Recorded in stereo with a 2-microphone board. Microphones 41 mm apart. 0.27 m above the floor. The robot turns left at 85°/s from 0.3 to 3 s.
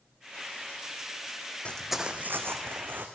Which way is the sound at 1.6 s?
30° left (ahead or behind).